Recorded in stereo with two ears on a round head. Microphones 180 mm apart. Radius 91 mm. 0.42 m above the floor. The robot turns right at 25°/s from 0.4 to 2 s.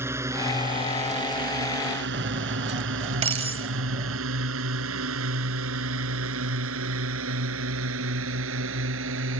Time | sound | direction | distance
0.0 | a drone | 15° right (ahead or behind) | ?
2.1 | cutlery clinking | 30° right (ahead or behind) | ?